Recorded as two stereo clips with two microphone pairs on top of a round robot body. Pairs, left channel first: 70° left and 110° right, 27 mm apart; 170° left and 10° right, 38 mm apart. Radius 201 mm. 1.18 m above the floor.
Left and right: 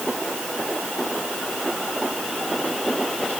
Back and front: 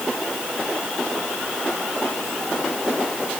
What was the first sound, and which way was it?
Only background noise.